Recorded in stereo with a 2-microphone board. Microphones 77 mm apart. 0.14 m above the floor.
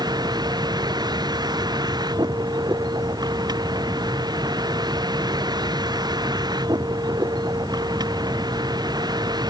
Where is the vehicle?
65° right (ahead or behind).